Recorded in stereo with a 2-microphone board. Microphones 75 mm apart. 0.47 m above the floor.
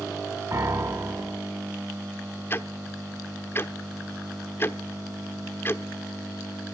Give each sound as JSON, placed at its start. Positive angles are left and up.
{"t": 0.5, "sound": "a piano", "side_deg": -45, "distance_m": 1.7}
{"t": 2.5, "sound": "ticking", "side_deg": 35, "distance_m": 0.9}